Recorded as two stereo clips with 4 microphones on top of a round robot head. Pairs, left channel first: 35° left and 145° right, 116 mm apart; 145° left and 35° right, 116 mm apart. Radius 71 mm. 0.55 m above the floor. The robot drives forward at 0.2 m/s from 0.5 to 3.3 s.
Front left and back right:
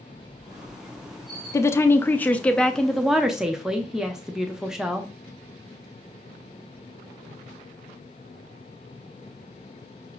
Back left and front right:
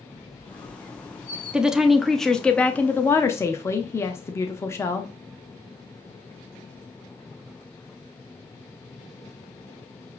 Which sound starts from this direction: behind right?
A squeak, at 0.1 s.